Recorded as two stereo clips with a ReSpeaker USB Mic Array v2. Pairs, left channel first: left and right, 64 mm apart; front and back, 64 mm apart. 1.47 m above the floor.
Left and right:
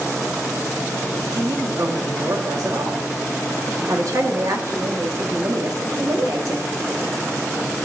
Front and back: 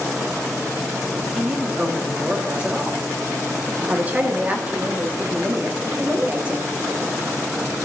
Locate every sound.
1.3 s a man speaking: 110° right, 1.8 m
3.9 s a woman speaking: 115° right, 1.6 m